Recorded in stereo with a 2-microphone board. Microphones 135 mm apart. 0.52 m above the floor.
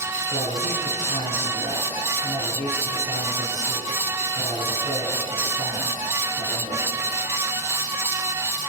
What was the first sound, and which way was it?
A man speaking, 60° left (ahead or behind).